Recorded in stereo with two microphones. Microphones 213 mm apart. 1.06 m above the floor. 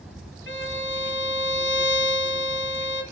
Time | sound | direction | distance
0.5 | a violin | 65° left (ahead or behind) | 1.7 m